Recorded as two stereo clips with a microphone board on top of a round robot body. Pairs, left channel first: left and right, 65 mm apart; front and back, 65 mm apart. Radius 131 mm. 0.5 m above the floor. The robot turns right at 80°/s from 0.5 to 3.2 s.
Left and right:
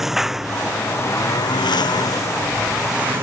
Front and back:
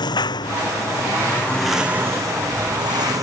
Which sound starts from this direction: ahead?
A lawn mower, at 0.0 s.